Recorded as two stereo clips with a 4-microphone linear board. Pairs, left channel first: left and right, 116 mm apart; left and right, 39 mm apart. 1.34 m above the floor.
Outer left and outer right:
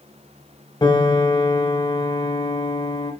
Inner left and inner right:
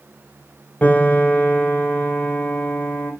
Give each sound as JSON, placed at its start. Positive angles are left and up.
{"t": 0.8, "sound": "a piano", "side_deg": 35, "distance_m": 4.0}